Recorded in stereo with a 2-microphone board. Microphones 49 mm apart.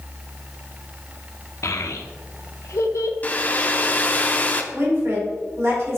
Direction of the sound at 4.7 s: 65° right (ahead or behind).